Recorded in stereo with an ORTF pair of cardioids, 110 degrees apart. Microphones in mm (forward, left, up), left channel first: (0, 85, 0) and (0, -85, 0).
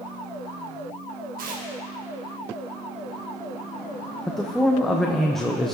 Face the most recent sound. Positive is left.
turn(degrees=0)